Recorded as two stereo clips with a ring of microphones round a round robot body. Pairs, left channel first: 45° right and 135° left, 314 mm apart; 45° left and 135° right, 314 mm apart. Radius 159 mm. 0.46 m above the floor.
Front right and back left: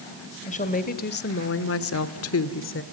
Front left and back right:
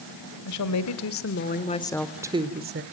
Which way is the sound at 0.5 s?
20° left.